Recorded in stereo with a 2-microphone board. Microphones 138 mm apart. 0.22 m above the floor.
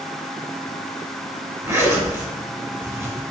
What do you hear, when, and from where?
1.6 s a zipper: 20° right (ahead or behind), 1.3 m